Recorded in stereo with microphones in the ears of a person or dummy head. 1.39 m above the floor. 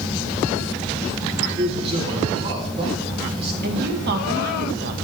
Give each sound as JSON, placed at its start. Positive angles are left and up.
{"t": 1.6, "sound": "a man speaking", "side_deg": -30, "distance_m": 4.0}
{"t": 3.6, "sound": "a woman speaking", "side_deg": -55, "distance_m": 2.0}